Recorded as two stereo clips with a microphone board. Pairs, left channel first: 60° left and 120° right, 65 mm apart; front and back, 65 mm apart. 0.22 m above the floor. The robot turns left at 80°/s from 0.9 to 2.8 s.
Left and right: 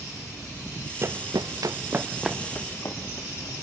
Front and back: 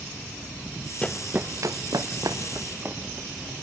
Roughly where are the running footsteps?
Right.